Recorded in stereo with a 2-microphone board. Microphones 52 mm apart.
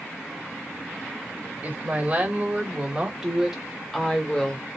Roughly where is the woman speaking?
Right.